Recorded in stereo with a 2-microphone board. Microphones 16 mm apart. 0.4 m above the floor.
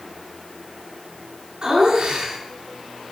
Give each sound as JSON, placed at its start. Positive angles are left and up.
{"t": 1.6, "sound": "laughter", "side_deg": -55, "distance_m": 5.5}